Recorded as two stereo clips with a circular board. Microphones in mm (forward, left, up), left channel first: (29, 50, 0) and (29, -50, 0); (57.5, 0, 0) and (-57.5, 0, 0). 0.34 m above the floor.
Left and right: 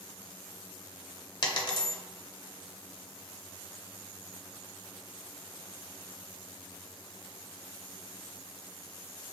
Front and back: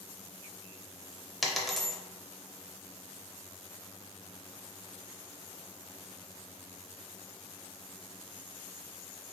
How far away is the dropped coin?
About 0.6 m.